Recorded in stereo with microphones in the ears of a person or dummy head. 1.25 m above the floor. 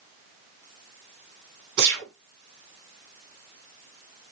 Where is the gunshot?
60° right (ahead or behind), 9 m.